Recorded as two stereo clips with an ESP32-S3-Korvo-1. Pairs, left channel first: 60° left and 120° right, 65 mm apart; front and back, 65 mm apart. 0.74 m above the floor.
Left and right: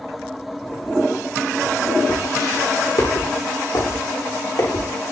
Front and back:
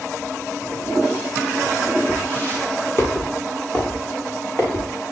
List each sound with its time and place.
2.1 s footsteps: 60° left, 7 m; by 4.9 s 55° left, 9.5 m